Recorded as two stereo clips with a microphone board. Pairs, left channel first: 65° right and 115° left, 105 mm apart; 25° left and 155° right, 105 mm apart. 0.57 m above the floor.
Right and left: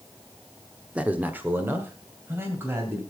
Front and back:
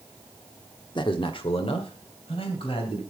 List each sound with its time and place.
0.9 s a man speaking: 35° left, 0.9 m; by 3.0 s 45° left, 3 m